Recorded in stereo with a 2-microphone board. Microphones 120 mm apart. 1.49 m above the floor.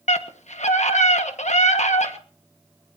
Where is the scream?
75° left (ahead or behind), 1.6 m.